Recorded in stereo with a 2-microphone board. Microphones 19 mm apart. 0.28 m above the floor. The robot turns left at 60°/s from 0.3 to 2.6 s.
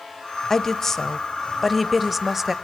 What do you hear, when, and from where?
0.5 s a woman speaking: 25° left (ahead or behind), 0.9 m; by 2.5 s 15° right (ahead or behind), 0.9 m